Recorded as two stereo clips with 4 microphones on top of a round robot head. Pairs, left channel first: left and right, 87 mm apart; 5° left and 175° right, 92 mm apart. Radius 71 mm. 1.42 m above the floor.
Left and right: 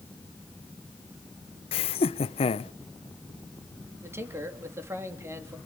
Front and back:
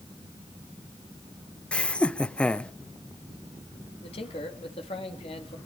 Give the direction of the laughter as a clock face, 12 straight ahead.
9 o'clock.